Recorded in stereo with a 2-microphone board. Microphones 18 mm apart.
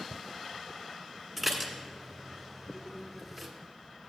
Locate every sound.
1.4 s dishes clattering: 5° left (ahead or behind), 1.4 m